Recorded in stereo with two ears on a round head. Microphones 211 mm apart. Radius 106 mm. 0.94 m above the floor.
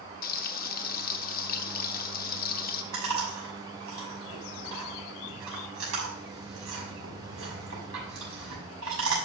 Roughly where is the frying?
Left.